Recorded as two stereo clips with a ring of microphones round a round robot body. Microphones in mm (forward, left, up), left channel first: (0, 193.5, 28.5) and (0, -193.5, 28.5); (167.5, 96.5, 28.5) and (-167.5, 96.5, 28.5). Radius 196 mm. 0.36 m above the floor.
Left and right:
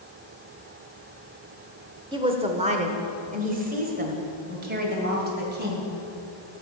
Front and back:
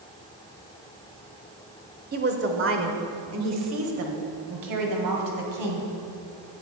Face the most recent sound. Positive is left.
turn(degrees=-155)